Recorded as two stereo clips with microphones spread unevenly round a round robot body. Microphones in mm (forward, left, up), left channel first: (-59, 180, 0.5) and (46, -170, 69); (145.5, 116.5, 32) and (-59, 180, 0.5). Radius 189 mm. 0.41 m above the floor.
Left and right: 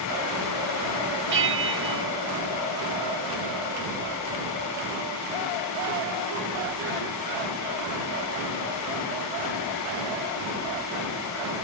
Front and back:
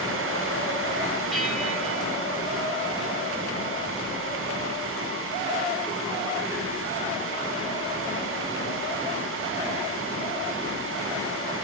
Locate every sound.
1.3 s a bell: 120° right, 1.0 m